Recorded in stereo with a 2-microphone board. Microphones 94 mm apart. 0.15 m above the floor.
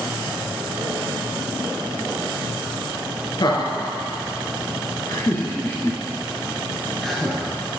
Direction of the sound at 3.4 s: 55° left (ahead or behind).